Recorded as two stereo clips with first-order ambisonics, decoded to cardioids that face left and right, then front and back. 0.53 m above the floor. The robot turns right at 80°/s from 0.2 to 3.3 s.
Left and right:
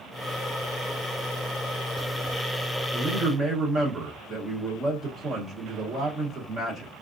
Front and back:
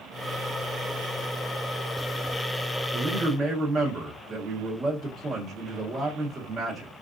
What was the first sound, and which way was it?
A man speaking, 165° right.